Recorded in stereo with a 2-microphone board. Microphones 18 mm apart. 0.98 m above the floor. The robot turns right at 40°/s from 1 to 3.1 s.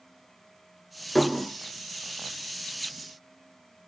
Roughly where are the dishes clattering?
Centre.